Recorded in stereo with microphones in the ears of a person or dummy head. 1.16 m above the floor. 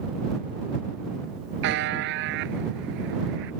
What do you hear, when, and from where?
1.6 s a buzzer: 60° right (ahead or behind)